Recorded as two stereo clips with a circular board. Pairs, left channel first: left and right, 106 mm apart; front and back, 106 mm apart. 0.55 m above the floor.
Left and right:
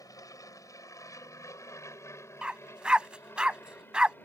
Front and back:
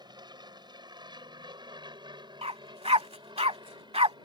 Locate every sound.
0.0 s an aircraft: 140° left; by 4.2 s 155° left
2.4 s a dog barking: 170° right